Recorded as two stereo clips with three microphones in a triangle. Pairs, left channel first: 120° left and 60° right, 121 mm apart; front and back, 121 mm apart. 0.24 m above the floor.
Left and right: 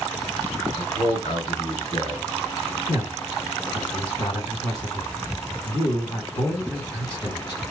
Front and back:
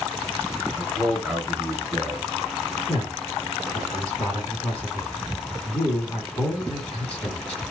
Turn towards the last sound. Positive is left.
turn(degrees=80)